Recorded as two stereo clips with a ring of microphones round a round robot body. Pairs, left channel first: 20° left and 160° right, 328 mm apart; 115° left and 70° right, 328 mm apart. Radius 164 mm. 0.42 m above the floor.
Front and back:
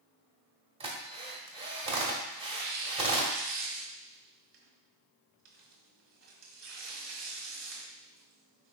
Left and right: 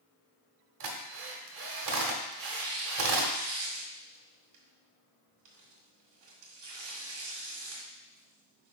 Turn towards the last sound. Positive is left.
turn(degrees=-105)